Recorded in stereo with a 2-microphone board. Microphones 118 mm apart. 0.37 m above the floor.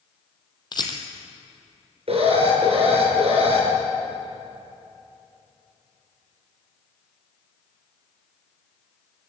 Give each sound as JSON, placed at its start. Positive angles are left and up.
{"t": 0.7, "sound": "a rattle", "side_deg": 40, "distance_m": 2.0}
{"t": 2.1, "sound": "an alarm", "side_deg": -55, "distance_m": 5.5}